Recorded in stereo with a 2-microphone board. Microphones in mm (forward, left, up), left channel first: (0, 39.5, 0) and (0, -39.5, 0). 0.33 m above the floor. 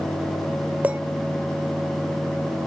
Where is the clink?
20° right (ahead or behind), 0.7 m.